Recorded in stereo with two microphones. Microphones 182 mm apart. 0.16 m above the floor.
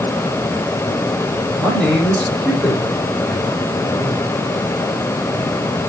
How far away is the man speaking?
About 6 m.